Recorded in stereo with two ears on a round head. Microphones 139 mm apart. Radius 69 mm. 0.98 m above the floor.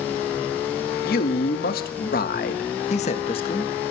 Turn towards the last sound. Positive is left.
turn(degrees=30)  # may be behind; listen again after turning